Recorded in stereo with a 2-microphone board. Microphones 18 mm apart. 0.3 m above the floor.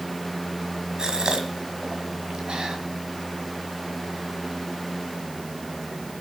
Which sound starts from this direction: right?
A gasp, at 1.0 s.